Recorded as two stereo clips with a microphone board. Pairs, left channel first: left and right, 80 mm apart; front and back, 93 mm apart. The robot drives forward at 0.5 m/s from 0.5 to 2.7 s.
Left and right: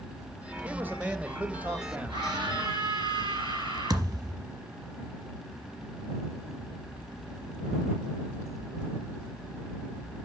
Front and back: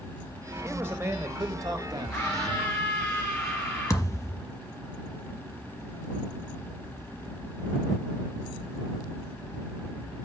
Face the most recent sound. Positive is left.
turn(degrees=-55)